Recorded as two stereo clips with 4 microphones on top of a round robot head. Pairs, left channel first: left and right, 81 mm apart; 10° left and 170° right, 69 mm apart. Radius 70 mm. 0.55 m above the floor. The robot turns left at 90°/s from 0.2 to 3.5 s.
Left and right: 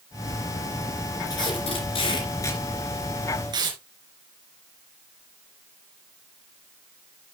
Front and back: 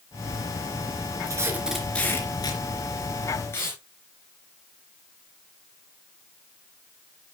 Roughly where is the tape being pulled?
Behind left.